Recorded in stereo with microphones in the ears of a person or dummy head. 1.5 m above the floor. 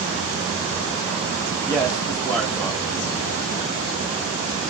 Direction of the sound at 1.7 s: 10° left (ahead or behind).